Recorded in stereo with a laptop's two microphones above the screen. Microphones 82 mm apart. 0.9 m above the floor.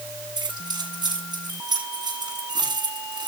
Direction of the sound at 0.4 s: 60° right (ahead or behind).